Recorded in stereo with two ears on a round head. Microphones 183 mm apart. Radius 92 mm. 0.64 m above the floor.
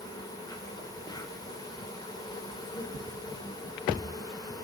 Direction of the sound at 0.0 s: 20° left (ahead or behind).